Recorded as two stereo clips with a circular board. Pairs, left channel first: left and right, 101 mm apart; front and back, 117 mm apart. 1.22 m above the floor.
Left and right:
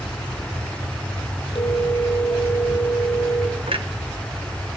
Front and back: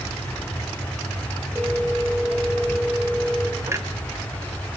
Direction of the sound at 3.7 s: 115° right.